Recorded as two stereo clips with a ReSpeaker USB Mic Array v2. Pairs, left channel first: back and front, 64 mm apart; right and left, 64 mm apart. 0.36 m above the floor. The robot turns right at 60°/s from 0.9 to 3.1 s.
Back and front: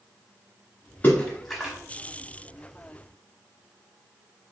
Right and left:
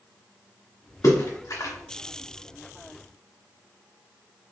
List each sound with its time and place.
1.0 s a splash: 115° right, 0.9 m; by 1.7 s 75° right, 0.9 m